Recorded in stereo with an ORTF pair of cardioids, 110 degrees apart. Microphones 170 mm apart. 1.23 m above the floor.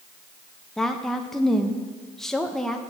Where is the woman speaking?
5° left, 0.7 m.